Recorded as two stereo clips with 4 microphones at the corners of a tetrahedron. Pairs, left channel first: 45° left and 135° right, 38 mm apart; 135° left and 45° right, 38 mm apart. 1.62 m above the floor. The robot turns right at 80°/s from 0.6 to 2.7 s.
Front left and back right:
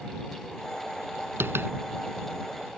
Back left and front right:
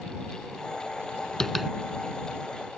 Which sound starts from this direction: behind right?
Tapping, at 1.4 s.